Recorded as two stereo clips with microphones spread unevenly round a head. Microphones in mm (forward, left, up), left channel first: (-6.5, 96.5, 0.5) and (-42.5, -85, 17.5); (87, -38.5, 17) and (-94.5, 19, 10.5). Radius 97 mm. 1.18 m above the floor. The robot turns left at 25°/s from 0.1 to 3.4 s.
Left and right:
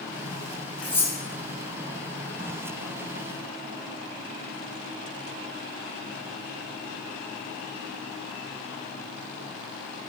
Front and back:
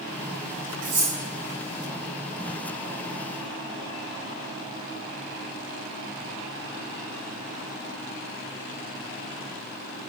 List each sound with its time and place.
0.8 s cutlery clinking: 160° left, 3.5 m; by 1.1 s 155° left, 3.5 m